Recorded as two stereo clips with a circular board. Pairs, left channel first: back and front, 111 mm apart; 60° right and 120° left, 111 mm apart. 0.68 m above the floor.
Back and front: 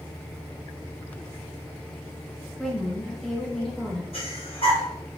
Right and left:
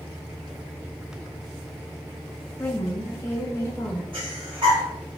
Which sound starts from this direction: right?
A woman speaking, at 2.6 s.